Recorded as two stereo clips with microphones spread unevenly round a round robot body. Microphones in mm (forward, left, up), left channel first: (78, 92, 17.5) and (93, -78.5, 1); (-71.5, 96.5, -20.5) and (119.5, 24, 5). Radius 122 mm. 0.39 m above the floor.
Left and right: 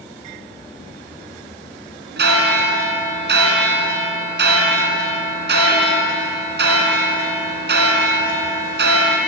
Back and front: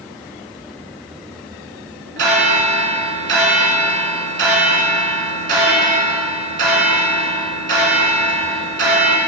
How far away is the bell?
About 2.5 m.